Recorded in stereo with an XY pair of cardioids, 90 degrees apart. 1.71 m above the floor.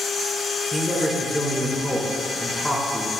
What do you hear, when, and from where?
0.7 s a man speaking: 5° left, 4 m